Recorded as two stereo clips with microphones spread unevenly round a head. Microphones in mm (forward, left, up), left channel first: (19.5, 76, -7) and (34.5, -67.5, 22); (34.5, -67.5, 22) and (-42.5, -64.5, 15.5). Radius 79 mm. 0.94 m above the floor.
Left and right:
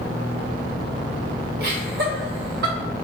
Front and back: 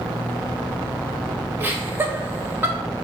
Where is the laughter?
120° right, 1.5 m.